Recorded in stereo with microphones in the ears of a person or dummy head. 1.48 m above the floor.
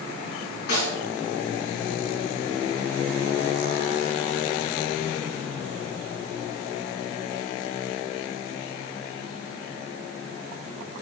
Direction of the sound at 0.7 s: 70° left (ahead or behind).